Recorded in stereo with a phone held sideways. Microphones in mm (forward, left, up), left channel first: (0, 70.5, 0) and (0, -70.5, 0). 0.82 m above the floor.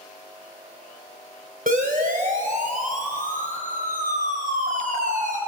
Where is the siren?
80° right, 4.5 m; by 5.4 s 65° right (ahead or behind), 7.5 m.